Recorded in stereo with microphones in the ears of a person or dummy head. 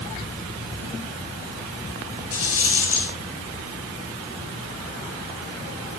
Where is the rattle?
90° left, 5.5 m.